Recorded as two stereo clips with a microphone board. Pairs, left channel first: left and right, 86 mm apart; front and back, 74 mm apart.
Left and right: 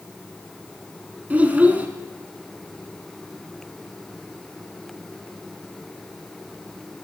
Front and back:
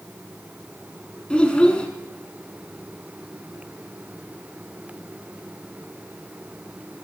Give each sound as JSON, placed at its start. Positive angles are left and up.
{"t": 1.3, "sound": "a child speaking", "azimuth_deg": -50, "distance_m": 0.8}